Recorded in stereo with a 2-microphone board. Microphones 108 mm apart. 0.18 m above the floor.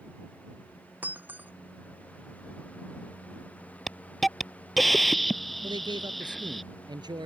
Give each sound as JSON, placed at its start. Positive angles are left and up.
{"t": 1.0, "sound": "breaking glass", "side_deg": -15}
{"t": 3.9, "sound": "a hiss", "side_deg": 0}
{"t": 5.6, "sound": "a man speaking", "side_deg": -40}